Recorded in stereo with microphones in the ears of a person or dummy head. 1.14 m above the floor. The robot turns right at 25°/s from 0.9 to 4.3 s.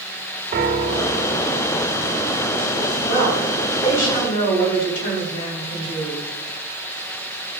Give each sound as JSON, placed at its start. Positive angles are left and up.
{"t": 0.5, "sound": "a piano", "side_deg": -45, "distance_m": 1.0}
{"t": 3.1, "sound": "a woman speaking", "azimuth_deg": 85, "distance_m": 3.5}